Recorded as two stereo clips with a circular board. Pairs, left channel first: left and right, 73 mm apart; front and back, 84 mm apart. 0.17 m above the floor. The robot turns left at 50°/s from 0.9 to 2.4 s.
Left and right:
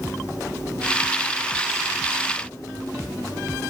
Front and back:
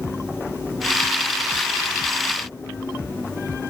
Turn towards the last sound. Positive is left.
No sound to turn to.